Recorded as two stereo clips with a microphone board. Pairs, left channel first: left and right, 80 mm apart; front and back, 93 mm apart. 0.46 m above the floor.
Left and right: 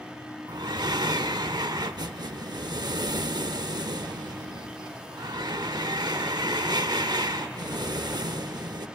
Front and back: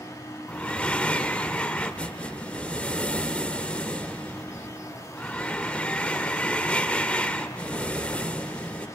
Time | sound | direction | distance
0.5 | breathing | 75° right | 0.6 m